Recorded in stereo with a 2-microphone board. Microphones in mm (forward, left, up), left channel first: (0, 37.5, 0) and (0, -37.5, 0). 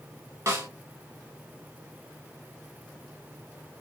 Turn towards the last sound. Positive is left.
turn(degrees=-40)  # may be behind; listen again after turning